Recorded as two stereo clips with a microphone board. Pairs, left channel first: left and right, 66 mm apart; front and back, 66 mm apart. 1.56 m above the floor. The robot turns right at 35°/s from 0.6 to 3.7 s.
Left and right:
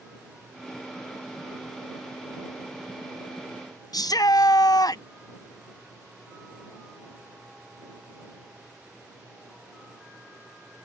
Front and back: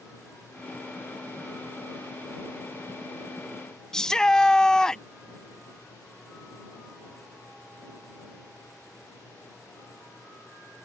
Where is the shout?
80° left.